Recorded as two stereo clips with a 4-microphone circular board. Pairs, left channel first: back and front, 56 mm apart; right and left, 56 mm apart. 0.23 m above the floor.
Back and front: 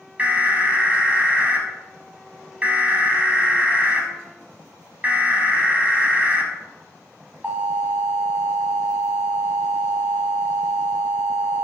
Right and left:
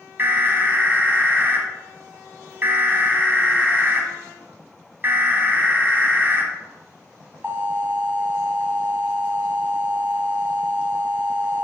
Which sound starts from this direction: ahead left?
An alarm, at 0.2 s.